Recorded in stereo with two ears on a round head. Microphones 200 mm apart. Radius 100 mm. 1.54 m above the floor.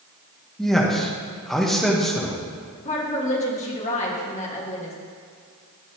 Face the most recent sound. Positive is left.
turn(degrees=30)  # may be behind; listen again after turning